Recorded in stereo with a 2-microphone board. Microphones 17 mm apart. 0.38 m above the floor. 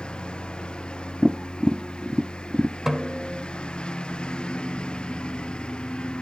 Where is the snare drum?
20° right (ahead or behind).